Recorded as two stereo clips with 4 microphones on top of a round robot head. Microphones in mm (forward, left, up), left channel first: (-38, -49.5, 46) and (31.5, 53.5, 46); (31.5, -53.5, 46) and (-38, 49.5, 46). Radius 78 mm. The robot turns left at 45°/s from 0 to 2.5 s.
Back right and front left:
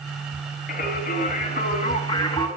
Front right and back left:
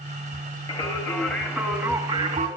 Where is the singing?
105° right, 3.5 m; by 2.5 s 175° left, 3.5 m.